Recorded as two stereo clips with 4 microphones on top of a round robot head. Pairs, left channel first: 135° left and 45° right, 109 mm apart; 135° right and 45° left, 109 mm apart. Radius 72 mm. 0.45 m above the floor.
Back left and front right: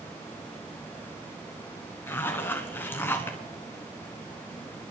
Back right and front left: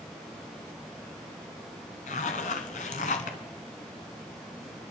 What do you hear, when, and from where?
2.1 s a zipper: 155° right, 1.1 m